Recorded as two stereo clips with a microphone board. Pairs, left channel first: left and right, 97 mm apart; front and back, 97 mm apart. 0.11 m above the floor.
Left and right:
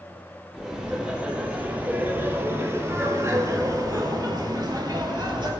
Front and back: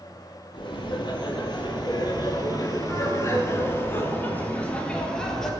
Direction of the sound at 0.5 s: 10° right.